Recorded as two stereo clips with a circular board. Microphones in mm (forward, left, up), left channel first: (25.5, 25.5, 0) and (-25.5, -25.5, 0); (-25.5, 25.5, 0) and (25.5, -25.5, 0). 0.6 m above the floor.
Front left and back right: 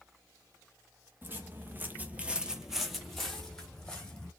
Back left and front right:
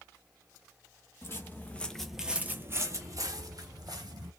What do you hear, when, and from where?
1.2 s footsteps: 175° left, 0.8 m; by 4.3 s 30° right, 1.4 m